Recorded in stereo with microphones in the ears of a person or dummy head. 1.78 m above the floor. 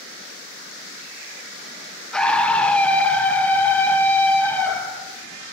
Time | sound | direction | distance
2.1 | a scream | 5° left (ahead or behind) | 1.2 m